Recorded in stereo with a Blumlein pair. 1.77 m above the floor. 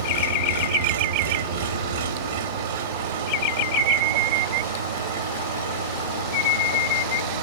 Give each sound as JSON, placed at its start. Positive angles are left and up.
{"t": 0.0, "sound": "an engine running", "azimuth_deg": -65, "distance_m": 2.5}